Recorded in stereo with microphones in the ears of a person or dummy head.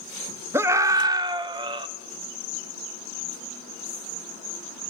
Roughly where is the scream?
Centre.